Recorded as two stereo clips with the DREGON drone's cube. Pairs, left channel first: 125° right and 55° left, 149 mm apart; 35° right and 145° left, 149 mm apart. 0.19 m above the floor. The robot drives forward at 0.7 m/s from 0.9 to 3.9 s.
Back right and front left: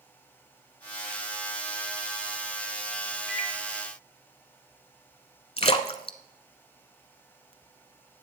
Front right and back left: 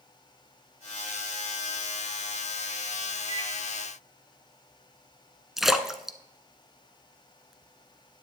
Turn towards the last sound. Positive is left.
turn(degrees=-130)